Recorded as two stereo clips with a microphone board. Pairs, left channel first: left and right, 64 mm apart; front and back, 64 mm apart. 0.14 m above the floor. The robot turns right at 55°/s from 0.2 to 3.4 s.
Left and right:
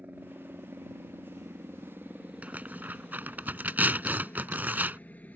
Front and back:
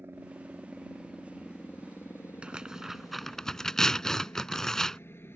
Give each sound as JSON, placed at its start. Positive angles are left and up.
{"t": 0.0, "sound": "a helicopter", "azimuth_deg": -140}
{"t": 2.4, "sound": "tearing paper", "azimuth_deg": -125}